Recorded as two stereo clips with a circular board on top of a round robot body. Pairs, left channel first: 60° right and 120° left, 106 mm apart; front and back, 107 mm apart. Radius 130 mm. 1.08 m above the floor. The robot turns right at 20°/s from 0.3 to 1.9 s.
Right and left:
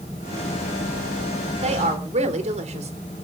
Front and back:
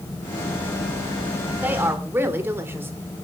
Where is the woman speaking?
105° left, 3 m; by 2.9 s 110° left, 3 m.